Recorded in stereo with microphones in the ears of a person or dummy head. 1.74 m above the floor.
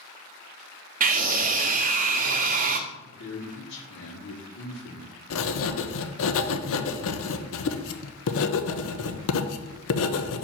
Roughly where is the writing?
Left.